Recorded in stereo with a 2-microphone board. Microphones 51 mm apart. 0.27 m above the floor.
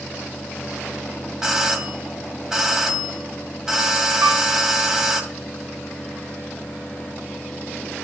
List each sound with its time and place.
1.4 s a doorbell: 10° right (ahead or behind), 1.7 m
4.2 s a piano: 60° right (ahead or behind), 3 m